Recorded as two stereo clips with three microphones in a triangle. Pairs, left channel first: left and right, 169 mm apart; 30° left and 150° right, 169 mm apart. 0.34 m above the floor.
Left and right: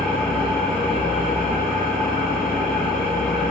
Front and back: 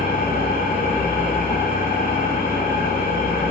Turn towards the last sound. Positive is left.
turn(degrees=5)